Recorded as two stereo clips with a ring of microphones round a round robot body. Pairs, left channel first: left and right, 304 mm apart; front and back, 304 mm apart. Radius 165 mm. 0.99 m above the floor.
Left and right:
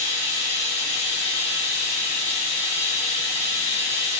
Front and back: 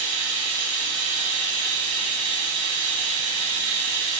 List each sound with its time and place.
0.0 s running water: 160° left, 1.6 m